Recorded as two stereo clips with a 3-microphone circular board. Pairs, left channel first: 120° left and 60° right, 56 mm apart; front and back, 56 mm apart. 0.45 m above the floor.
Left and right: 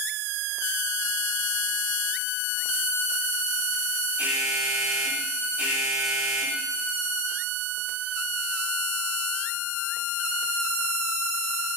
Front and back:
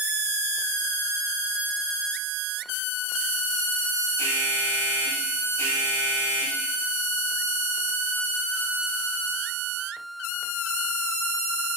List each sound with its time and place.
4.2 s an alarm: straight ahead, 3.5 m